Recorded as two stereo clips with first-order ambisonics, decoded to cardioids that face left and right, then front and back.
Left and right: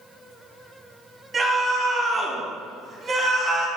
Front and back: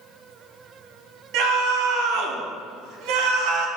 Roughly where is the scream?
Behind.